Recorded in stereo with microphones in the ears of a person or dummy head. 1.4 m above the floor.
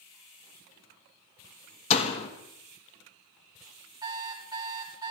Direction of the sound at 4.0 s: 25° right (ahead or behind).